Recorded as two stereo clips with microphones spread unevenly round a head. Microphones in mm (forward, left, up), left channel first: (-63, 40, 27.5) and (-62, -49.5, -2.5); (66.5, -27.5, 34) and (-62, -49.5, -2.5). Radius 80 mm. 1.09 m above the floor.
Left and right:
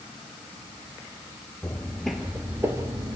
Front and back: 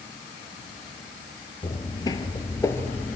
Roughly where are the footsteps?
Ahead left.